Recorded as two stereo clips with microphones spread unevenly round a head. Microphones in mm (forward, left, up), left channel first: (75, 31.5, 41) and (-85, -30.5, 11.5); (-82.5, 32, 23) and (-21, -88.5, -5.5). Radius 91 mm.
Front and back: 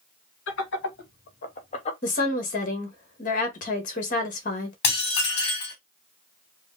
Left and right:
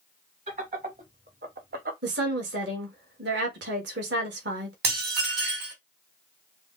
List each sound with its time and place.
0.5 s laughter: 5° right, 1.8 m; by 1.9 s 40° right, 1.2 m
2.0 s a woman speaking: 25° right, 1.4 m
4.8 s dishes clattering: 35° right, 3 m